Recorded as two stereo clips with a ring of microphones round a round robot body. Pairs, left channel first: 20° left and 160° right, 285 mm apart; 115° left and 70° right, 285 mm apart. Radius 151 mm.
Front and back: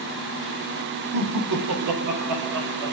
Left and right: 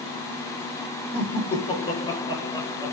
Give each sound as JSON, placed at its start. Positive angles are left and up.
{"t": 1.1, "sound": "laughter", "azimuth_deg": 180, "distance_m": 3.0}